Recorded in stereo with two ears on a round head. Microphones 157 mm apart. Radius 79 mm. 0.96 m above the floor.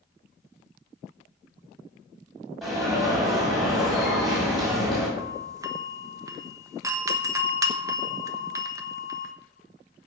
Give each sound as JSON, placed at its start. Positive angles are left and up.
{"t": 2.6, "sound": "an alarm", "side_deg": 0, "distance_m": 7.0}
{"t": 5.2, "sound": "a doorbell", "side_deg": -20, "distance_m": 1.2}